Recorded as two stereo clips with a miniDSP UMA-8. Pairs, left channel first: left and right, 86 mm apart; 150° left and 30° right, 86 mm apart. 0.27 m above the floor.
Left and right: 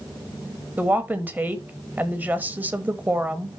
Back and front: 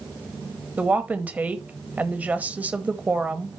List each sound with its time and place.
0.8 s a woman speaking: 65° right, 1.1 m